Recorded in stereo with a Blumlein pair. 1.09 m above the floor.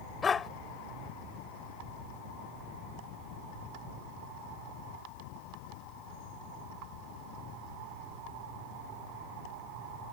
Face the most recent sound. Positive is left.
turn(degrees=20)